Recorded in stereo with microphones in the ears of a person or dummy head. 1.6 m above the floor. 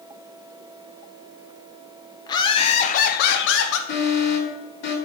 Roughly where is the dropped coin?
I don't hear a dropped coin.